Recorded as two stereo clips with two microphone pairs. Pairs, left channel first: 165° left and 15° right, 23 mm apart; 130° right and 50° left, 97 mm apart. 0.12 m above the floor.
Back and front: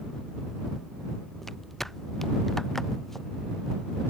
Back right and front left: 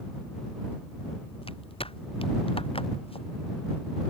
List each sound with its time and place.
1.4 s footsteps: 115° right; by 3.3 s 120° right